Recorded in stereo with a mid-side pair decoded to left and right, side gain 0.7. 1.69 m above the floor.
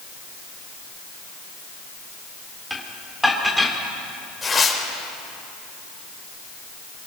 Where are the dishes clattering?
Straight ahead, 3 m.